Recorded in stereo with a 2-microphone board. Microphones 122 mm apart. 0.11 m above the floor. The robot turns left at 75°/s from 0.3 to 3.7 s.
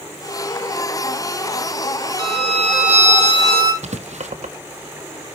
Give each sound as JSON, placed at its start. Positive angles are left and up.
{"t": 2.2, "sound": "a violin", "azimuth_deg": -40, "distance_m": 3.5}
{"t": 3.8, "sound": "writing", "side_deg": -75, "distance_m": 1.0}